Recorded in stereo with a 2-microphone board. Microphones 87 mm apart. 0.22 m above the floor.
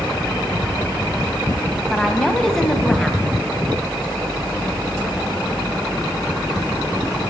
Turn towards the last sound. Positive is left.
turn(degrees=5)  # may be behind; listen again after turning